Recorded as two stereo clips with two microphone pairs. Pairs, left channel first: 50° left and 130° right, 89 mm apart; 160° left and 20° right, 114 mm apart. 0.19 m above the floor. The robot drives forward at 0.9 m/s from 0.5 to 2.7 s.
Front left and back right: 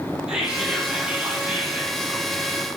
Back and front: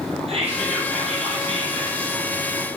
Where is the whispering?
50° right, 7.5 m; by 2.2 s 60° right, 6.5 m.